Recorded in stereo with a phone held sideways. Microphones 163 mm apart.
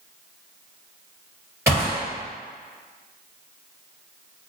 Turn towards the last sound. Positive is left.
turn(degrees=-15)  # may be behind; listen again after turning